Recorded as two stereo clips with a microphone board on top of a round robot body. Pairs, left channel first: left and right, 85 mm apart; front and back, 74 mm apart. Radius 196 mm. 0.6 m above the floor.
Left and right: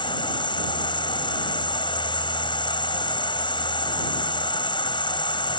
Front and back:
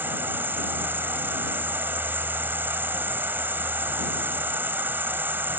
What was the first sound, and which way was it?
An insect, 115° left.